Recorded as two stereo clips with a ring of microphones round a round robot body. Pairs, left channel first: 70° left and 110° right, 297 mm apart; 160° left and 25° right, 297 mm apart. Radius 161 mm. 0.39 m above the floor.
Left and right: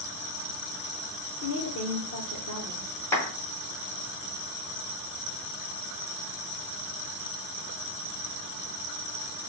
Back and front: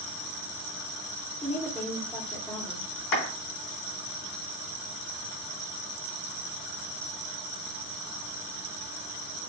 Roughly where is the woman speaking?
Left.